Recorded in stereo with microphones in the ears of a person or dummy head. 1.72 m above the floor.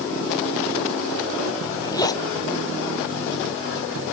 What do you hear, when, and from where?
1.6 s a zipper: 25° left (ahead or behind)